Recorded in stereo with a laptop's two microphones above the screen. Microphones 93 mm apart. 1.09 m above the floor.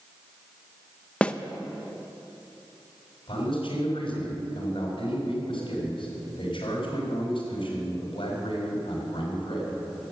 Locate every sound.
1.2 s a snare drum: 10° left (ahead or behind), 0.7 m
3.3 s a man speaking: 65° left (ahead or behind), 5 m